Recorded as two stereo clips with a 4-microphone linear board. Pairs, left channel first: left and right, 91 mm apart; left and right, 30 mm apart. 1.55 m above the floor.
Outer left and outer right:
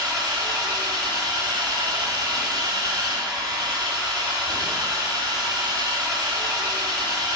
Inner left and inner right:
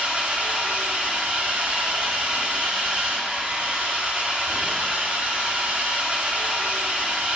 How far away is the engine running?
About 1.9 m.